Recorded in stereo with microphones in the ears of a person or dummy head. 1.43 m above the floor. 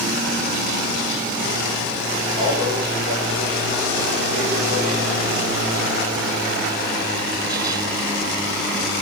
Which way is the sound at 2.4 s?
50° right (ahead or behind).